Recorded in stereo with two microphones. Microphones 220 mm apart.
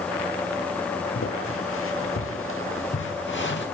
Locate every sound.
1.1 s footsteps: 80° left, 3.5 m; by 3.7 s 55° left (ahead or behind), 3 m